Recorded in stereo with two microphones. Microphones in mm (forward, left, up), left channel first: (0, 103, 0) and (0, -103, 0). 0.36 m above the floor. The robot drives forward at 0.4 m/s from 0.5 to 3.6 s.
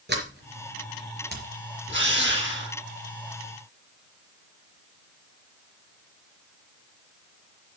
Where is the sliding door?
55° right (ahead or behind), 4 m.